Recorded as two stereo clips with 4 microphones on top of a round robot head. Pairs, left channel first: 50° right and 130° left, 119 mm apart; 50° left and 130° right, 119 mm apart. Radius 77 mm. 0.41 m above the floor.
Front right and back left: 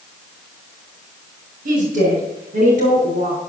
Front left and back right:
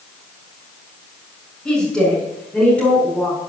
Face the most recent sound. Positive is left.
turn(degrees=125)